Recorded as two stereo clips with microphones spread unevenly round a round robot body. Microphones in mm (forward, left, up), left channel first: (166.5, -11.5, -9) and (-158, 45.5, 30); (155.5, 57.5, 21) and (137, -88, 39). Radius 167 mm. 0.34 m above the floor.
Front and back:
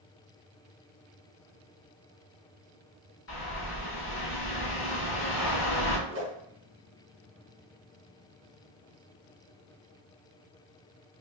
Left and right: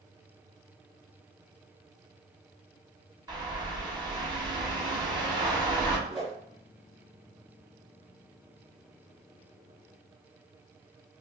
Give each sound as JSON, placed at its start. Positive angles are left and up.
{"t": 3.3, "sound": "a bird", "azimuth_deg": -35, "distance_m": 1.4}
{"t": 6.1, "sound": "a whoosh", "azimuth_deg": 165, "distance_m": 1.7}